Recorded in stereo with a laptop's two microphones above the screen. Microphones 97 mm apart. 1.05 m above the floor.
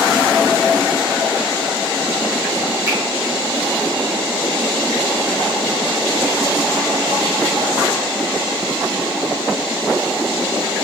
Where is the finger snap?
30° right (ahead or behind), 0.7 m.